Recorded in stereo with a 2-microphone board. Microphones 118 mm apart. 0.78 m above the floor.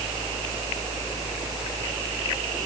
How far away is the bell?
No bell in this recording.